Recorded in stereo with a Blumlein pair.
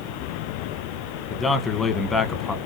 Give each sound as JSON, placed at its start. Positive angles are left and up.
{"t": 1.3, "sound": "a man speaking", "azimuth_deg": 10, "distance_m": 0.9}